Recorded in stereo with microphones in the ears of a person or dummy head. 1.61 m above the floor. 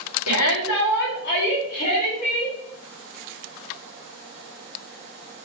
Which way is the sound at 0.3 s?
80° left.